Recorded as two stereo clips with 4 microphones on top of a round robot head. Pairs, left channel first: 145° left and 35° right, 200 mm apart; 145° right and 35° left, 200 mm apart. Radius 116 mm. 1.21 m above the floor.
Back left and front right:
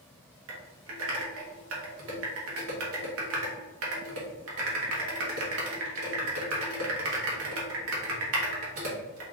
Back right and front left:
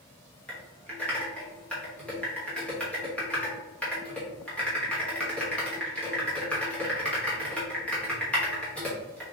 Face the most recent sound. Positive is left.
turn(degrees=-60)